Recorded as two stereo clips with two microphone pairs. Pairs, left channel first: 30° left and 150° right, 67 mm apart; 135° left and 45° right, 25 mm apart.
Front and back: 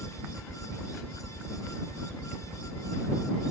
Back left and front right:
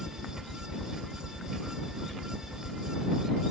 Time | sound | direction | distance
0.0 | a helicopter | 165° right | ?